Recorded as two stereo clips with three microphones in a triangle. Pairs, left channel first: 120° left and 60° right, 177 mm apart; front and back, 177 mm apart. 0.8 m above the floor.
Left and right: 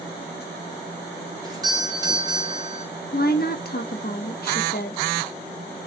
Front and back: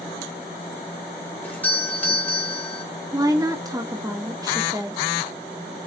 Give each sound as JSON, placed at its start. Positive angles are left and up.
{"t": 1.4, "sound": "a doorbell", "azimuth_deg": -65, "distance_m": 1.1}
{"t": 3.1, "sound": "a woman speaking", "azimuth_deg": 115, "distance_m": 0.8}